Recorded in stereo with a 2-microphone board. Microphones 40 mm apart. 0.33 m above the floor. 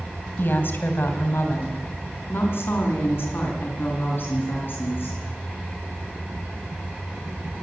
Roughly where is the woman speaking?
Left.